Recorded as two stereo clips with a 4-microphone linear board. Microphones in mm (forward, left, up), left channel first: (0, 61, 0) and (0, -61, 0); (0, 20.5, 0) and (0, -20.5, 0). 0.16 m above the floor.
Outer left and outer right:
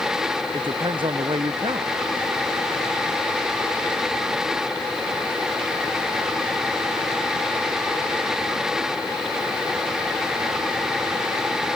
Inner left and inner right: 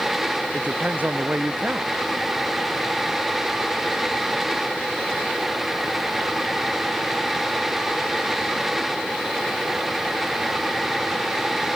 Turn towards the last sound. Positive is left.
turn(degrees=-40)  # may be behind; listen again after turning